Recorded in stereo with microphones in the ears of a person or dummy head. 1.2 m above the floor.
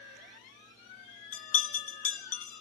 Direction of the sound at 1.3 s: 35° left (ahead or behind).